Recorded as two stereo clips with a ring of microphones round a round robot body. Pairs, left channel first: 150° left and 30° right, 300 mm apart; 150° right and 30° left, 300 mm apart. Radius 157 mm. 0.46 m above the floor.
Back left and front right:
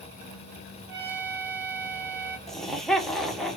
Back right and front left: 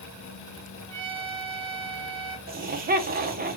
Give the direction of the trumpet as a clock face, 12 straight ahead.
12 o'clock.